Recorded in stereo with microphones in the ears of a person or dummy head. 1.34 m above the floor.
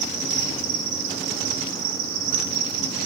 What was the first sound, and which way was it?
An insect, 70° right (ahead or behind).